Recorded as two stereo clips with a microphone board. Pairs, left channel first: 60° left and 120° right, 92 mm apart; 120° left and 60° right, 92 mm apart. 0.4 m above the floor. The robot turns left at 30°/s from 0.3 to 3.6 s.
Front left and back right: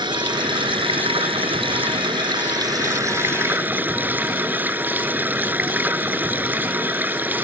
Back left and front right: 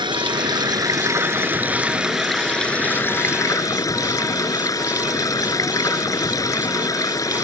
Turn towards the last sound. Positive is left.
turn(degrees=170)